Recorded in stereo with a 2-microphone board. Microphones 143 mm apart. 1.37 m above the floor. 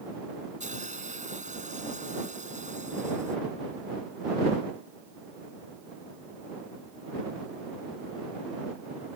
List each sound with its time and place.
0.6 s a hiss: 50° right (ahead or behind)